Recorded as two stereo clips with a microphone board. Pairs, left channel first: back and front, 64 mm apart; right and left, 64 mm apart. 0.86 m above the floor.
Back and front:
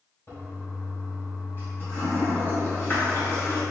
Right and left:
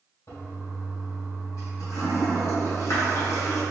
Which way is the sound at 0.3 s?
120° right.